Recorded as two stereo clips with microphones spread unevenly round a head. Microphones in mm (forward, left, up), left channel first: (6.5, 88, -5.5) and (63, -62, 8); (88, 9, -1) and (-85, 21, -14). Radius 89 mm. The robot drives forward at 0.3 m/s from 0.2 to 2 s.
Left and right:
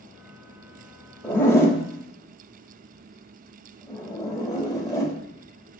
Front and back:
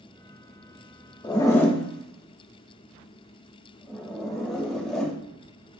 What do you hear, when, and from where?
1.2 s a zipper: 35° left, 0.8 m; by 5.1 s 70° left, 0.7 m